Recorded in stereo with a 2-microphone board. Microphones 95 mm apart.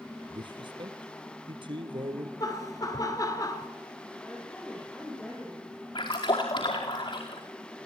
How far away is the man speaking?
About 2.5 m.